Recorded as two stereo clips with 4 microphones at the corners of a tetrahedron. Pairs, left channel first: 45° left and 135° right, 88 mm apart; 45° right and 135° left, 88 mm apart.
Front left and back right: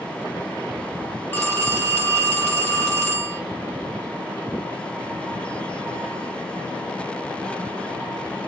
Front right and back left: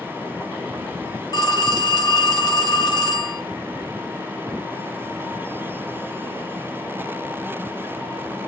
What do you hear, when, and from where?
1.3 s a phone ringing: 20° right, 0.9 m